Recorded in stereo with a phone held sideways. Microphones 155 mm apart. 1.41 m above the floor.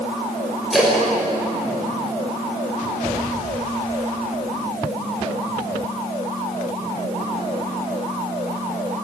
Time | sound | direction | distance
0.7 | a splash | centre (ahead or behind) | 7 m